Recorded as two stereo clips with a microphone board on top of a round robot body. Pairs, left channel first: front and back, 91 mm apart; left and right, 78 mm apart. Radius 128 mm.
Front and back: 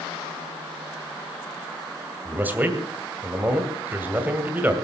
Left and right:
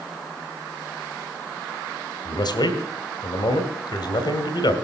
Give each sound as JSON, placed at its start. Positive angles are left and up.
{"t": 2.2, "sound": "a man speaking", "azimuth_deg": 110, "distance_m": 2.5}